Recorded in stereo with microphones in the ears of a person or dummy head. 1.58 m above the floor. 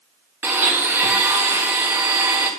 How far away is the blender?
About 1.5 m.